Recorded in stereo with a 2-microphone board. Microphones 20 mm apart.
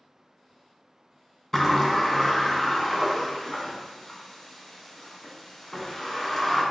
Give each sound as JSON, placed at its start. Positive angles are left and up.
{"t": 1.5, "sound": "a sliding door", "side_deg": 20, "distance_m": 0.9}